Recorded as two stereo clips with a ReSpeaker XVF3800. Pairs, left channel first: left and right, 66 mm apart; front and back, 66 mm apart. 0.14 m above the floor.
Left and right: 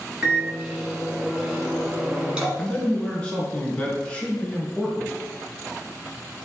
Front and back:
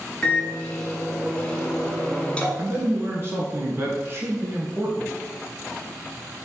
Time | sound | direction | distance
0.2 | a microwave | 40° right | 1.2 m
2.6 | a man speaking | 155° left | 1.5 m